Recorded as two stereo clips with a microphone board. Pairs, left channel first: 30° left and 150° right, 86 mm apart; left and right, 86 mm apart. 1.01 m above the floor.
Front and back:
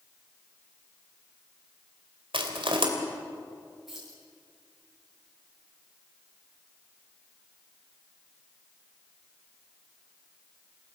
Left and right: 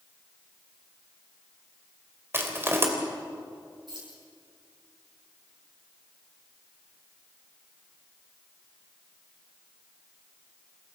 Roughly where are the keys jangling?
Ahead right.